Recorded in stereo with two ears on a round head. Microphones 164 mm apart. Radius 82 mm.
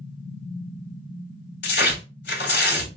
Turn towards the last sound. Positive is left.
turn(degrees=65)  # may be behind; listen again after turning